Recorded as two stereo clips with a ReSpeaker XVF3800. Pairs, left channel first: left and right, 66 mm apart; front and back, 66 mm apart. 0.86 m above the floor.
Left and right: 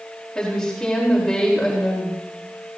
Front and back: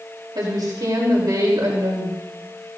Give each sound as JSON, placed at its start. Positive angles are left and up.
{"t": 0.3, "sound": "a woman speaking", "azimuth_deg": 170, "distance_m": 3.5}